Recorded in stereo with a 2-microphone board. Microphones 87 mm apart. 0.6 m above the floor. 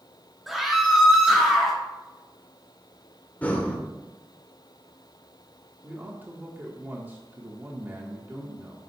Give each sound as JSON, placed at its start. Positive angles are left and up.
{"t": 0.5, "sound": "a scream", "side_deg": 0, "distance_m": 1.3}
{"t": 3.4, "sound": "breathing", "side_deg": 15, "distance_m": 1.3}
{"t": 5.8, "sound": "a man speaking", "side_deg": -20, "distance_m": 1.5}